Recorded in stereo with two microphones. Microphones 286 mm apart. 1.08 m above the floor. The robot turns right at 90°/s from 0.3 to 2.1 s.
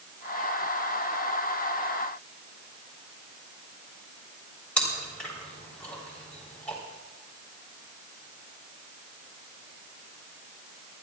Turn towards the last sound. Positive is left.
turn(degrees=5)  # may be behind; listen again after turning